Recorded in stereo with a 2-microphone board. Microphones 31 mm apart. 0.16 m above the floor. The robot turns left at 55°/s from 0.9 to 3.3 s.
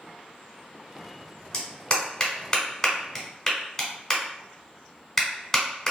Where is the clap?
20° left (ahead or behind), 0.9 m; by 5.9 s 10° left (ahead or behind), 0.9 m.